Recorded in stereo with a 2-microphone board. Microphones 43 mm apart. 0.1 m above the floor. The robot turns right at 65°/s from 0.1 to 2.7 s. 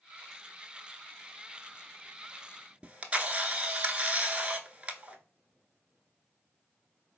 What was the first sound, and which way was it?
A camera shutter, 25° right (ahead or behind).